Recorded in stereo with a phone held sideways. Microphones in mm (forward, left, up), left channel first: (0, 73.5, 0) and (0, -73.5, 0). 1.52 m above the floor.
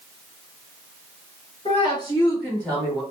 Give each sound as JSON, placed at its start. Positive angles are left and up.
{"t": 1.6, "sound": "a woman speaking", "side_deg": 45, "distance_m": 2.0}